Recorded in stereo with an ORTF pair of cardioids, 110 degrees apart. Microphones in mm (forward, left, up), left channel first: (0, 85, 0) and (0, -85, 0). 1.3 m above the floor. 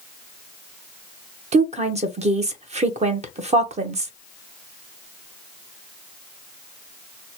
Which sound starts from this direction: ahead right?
A woman speaking, at 1.5 s.